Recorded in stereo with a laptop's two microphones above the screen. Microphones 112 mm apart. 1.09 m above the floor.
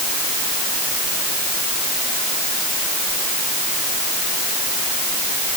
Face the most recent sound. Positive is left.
No sound to turn to.